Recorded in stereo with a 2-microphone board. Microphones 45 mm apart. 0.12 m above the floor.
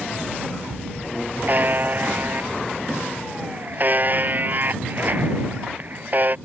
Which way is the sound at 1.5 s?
45° right (ahead or behind).